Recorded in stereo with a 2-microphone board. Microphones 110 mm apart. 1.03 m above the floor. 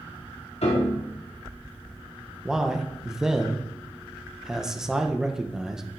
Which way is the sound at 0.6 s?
75° left (ahead or behind).